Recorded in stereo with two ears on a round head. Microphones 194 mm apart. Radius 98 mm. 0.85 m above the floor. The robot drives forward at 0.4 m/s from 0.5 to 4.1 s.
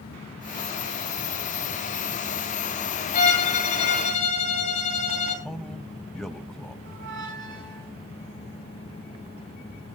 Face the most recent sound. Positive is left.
turn(degrees=-65)  # may be behind; listen again after turning